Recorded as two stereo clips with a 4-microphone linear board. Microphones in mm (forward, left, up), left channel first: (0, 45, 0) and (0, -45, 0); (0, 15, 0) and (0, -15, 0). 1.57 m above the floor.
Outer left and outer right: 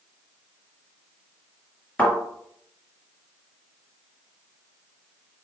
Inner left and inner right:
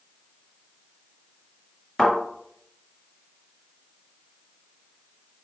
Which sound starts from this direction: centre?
A thud, at 2.0 s.